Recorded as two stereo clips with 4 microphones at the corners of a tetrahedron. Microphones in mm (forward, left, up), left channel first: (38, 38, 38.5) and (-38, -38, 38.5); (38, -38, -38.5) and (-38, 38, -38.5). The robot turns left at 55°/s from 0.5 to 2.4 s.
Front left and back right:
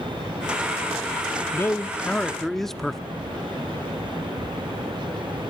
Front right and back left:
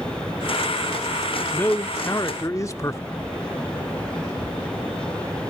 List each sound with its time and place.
1.5 s a man speaking: 10° left, 1.0 m; by 3.0 s 40° right, 1.0 m